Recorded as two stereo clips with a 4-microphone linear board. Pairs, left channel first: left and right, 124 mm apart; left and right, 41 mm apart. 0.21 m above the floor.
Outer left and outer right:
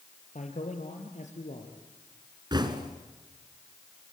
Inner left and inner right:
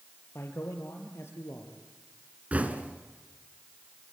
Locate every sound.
0.3 s a man speaking: 75° left (ahead or behind), 4.5 m
2.5 s knocking: 35° right (ahead or behind), 2 m